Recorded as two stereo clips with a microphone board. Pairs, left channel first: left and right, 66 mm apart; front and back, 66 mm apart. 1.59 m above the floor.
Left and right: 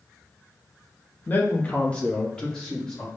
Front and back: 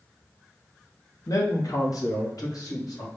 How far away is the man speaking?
About 1.0 m.